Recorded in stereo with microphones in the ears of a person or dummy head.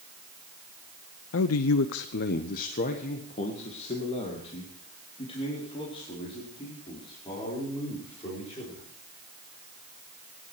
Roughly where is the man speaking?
Left.